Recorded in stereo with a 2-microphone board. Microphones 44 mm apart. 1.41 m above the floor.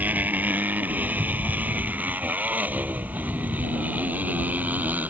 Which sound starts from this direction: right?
A motorcycle, at 0.0 s.